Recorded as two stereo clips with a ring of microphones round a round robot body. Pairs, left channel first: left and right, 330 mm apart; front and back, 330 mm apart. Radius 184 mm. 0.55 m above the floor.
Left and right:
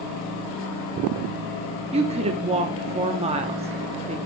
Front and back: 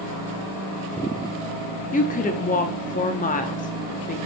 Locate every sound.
1.9 s a woman speaking: 40° right, 0.8 m